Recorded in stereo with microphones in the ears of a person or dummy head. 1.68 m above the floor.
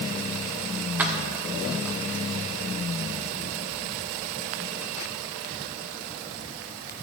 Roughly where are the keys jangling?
Centre.